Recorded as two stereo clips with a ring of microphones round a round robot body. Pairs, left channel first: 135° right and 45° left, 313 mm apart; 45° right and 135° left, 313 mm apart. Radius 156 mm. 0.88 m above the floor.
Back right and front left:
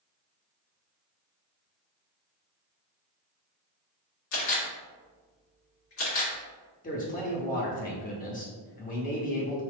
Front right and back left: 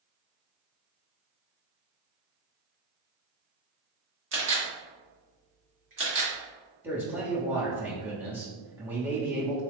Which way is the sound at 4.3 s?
175° right.